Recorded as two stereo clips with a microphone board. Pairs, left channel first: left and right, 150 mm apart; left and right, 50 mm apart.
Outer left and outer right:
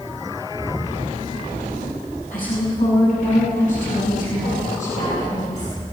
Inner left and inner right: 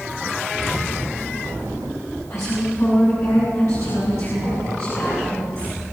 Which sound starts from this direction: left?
A woman speaking, at 2.3 s.